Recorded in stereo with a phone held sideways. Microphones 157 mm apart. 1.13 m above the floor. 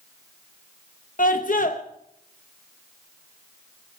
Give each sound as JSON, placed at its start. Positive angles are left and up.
{"t": 1.2, "sound": "a scream", "side_deg": 60, "distance_m": 0.8}